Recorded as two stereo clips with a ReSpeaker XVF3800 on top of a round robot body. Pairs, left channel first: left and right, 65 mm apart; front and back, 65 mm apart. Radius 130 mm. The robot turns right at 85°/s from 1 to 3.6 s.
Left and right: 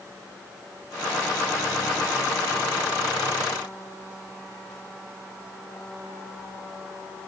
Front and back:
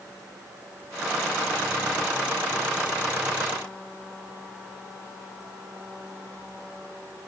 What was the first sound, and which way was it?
Only background noise.